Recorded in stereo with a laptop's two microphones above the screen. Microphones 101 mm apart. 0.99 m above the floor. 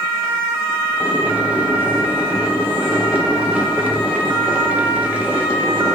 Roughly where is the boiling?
Centre.